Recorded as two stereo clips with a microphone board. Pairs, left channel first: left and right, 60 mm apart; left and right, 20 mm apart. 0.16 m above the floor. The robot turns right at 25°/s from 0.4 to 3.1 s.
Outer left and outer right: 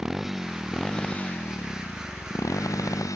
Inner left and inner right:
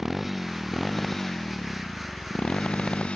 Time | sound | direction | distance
0.0 | a motorcycle | 5° right (ahead or behind) | ?